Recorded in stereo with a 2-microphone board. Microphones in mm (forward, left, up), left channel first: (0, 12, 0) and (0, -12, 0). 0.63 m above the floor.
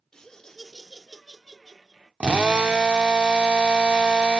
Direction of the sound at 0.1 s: 30° left (ahead or behind).